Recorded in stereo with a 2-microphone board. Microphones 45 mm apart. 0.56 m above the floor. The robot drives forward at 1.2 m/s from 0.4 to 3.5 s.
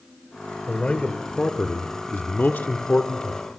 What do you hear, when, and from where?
0.7 s a man speaking: 25° left (ahead or behind), 2 m